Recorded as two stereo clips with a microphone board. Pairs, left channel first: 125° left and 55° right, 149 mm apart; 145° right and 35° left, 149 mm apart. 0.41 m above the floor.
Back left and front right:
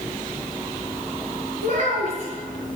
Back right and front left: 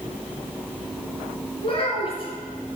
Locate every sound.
1.6 s a child speaking: 165° left, 3.5 m